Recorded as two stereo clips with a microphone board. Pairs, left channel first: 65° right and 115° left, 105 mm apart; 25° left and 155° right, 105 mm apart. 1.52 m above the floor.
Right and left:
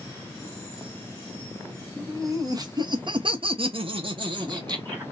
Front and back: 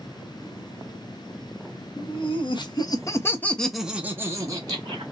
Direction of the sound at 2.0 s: 50° left.